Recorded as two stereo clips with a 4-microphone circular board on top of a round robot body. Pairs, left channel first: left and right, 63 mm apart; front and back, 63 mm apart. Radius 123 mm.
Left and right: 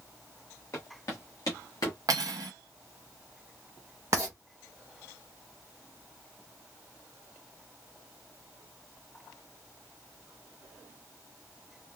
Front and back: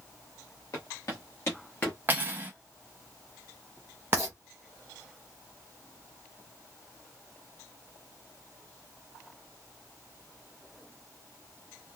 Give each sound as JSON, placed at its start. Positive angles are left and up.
{"t": 0.7, "sound": "footsteps", "azimuth_deg": 40, "distance_m": 1.2}
{"t": 2.1, "sound": "cutlery clinking", "azimuth_deg": -120, "distance_m": 0.6}
{"t": 4.1, "sound": "writing", "azimuth_deg": -130, "distance_m": 0.6}